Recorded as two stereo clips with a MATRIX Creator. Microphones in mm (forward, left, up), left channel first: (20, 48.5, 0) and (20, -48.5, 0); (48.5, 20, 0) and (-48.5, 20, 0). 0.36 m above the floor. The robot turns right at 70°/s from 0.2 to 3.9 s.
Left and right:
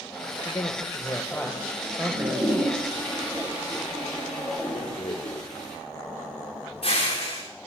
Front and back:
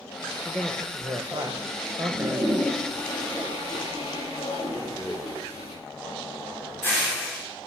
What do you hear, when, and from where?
0.5 s a man speaking: 95° left, 1.7 m; by 2.8 s 105° right, 1.7 m
2.0 s a toilet flushing: 130° right, 10 m; by 5.8 s 5° left, 10 m
4.8 s a rattle: 70° left, 6 m